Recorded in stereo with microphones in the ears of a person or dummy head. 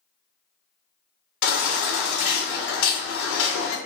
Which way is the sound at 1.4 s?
65° left (ahead or behind).